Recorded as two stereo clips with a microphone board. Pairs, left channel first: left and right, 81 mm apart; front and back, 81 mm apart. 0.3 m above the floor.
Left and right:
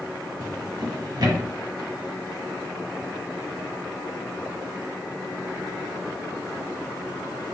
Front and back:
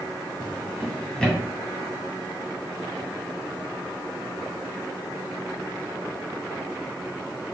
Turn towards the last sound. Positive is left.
turn(degrees=-75)